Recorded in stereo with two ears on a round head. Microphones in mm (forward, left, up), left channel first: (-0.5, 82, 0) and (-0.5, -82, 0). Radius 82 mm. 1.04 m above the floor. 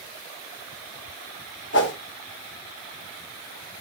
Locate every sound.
1.7 s a whoosh: 70° left (ahead or behind), 2.5 m